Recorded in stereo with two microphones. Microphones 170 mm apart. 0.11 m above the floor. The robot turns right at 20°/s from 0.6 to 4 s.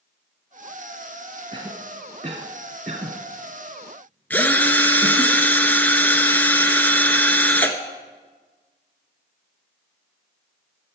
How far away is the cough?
About 1.5 m.